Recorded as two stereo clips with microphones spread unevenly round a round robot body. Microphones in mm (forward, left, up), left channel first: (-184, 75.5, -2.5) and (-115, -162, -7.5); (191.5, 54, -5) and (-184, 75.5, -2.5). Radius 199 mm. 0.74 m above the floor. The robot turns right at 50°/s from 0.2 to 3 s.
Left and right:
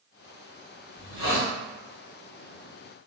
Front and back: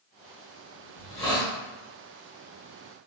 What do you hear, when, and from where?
0.9 s a hiss: 55° left, 1.3 m; by 1.5 s 85° left, 1.3 m